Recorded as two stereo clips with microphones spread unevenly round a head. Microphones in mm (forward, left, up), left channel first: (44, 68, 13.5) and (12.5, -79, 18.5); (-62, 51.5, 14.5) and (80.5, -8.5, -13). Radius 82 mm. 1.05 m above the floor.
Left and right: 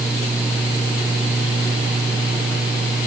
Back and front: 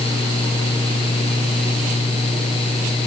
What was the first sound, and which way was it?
Only background noise.